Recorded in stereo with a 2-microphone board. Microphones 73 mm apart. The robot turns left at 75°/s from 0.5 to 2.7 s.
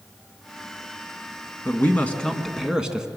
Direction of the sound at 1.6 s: 65° left.